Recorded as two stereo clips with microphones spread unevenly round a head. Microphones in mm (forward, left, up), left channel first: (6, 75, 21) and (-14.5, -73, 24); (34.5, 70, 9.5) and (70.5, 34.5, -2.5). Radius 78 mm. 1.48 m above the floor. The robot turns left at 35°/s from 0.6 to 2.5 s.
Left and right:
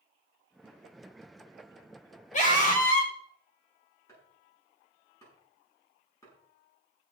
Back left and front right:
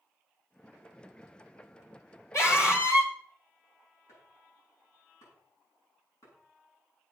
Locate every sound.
2.3 s a scream: 125° left, 5 m; by 3.1 s 120° left, 5 m
4.1 s chopping: 155° left, 7 m